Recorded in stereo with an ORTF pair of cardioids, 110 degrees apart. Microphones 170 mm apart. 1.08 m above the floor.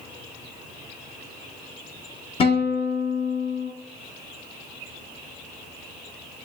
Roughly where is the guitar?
Ahead left.